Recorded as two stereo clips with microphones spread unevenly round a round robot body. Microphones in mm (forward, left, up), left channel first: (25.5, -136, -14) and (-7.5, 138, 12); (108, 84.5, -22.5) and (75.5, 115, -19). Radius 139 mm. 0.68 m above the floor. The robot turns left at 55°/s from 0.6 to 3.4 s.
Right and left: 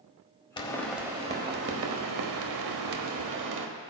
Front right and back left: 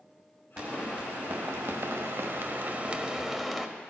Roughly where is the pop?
Behind.